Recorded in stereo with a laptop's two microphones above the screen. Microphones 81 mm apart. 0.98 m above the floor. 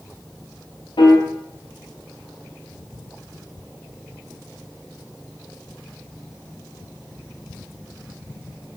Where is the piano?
90° left, 0.8 m.